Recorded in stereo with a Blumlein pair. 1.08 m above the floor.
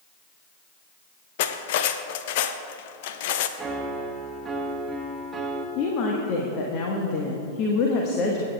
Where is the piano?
10° right, 1.3 m.